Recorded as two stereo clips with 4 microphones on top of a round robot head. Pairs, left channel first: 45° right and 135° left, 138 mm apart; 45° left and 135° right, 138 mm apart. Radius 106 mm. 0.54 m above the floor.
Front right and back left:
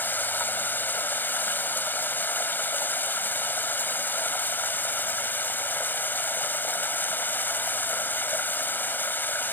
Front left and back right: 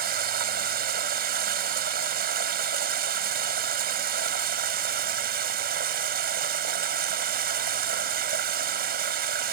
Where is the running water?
125° right.